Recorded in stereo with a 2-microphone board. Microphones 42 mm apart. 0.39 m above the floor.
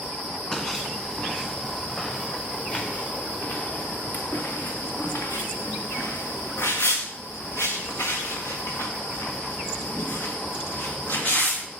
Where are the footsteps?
15° left (ahead or behind), 3.5 m; by 11.7 s 50° left (ahead or behind), 4 m.